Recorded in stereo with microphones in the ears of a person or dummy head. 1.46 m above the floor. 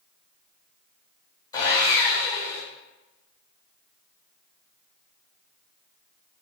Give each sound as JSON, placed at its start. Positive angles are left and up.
{"t": 1.5, "sound": "sawing", "side_deg": 20, "distance_m": 1.4}